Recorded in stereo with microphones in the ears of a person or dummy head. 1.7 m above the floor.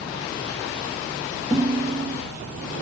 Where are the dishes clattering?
5° right (ahead or behind), 2.5 m.